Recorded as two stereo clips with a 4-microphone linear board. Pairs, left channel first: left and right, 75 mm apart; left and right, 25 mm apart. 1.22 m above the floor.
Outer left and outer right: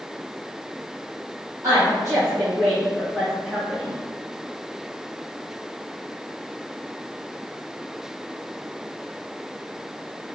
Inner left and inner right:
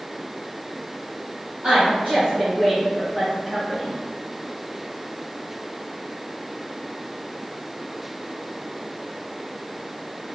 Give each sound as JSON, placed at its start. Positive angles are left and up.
{"t": 1.6, "sound": "a woman speaking", "side_deg": -50, "distance_m": 0.8}